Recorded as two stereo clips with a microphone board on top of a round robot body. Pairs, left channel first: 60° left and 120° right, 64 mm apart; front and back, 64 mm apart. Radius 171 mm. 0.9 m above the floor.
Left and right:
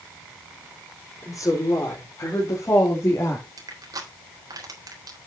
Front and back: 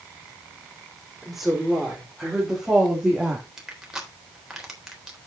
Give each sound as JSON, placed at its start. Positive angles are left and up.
{"t": 1.2, "sound": "a woman speaking", "azimuth_deg": 95, "distance_m": 4.0}
{"t": 3.6, "sound": "crushing", "azimuth_deg": -95, "distance_m": 3.5}